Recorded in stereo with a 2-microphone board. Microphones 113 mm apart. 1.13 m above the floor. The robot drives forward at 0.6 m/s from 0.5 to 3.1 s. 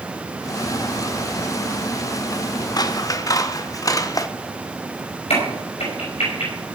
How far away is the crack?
About 5.5 m.